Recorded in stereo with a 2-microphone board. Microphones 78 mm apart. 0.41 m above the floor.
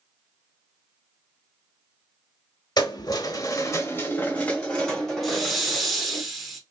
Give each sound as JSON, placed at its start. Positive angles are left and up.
{"t": 2.8, "sound": "keys jangling", "side_deg": 65, "distance_m": 1.0}
{"t": 5.2, "sound": "a hiss", "side_deg": 0, "distance_m": 1.0}